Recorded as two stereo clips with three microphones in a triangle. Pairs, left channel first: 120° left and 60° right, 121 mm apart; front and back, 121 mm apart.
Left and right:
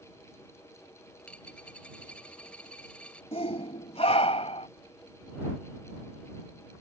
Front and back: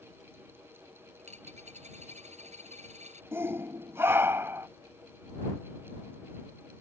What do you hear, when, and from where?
1.2 s a dropped coin: 160° right
3.3 s a shout: 115° left